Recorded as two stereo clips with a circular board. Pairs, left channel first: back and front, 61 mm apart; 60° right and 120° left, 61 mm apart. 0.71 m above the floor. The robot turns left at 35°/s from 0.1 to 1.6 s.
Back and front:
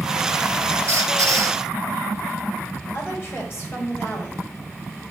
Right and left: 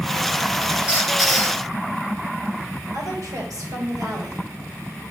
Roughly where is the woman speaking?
Behind left.